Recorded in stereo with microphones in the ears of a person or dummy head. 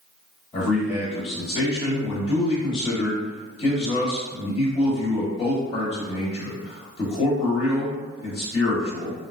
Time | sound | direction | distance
0.5 | a man speaking | 35° left (ahead or behind) | 1.2 m